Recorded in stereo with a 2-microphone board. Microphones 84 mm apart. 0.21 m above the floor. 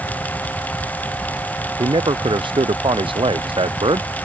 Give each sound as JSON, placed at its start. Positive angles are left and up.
{"t": 1.8, "sound": "a man speaking", "side_deg": -65}